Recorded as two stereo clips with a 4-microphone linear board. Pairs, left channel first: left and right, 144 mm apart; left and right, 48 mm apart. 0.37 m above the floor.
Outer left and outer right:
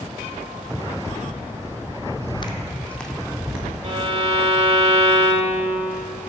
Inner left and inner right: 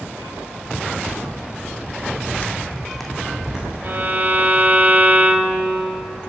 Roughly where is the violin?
Right.